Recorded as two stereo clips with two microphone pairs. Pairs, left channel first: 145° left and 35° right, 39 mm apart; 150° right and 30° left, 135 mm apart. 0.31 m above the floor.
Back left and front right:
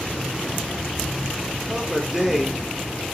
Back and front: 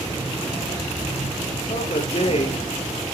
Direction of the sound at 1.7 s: 115° right.